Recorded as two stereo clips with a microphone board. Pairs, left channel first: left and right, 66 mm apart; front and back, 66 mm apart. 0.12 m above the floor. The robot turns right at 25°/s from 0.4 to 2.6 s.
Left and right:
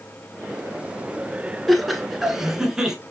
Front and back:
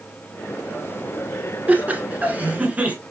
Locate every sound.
1.7 s laughter: straight behind, 1.2 m; by 3.0 s 155° right, 1.2 m